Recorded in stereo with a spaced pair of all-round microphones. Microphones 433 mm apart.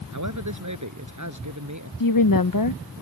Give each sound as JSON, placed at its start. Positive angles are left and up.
{"t": 0.1, "sound": "a man speaking", "side_deg": -40}
{"t": 2.0, "sound": "a woman speaking", "side_deg": 50}